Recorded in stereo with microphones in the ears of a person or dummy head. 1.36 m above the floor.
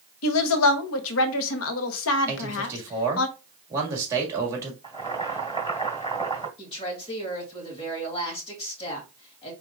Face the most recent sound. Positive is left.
turn(degrees=30)  # may be behind; listen again after turning